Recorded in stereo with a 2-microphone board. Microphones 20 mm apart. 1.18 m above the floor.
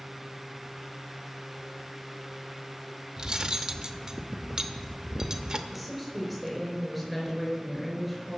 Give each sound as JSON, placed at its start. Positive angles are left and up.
{"t": 3.2, "sound": "cutlery clinking", "side_deg": -30, "distance_m": 0.8}
{"t": 5.7, "sound": "a woman speaking", "side_deg": 10, "distance_m": 5.0}